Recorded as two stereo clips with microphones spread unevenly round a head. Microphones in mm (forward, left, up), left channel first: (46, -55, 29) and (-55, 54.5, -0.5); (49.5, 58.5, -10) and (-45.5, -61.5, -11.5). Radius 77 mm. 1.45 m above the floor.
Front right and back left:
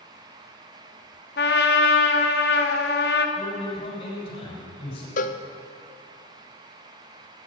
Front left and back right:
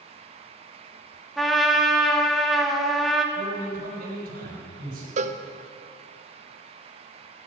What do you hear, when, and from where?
1.4 s a trumpet: 35° right, 1.3 m
3.4 s a man speaking: 95° right, 6 m
5.2 s a cowbell: 80° right, 0.7 m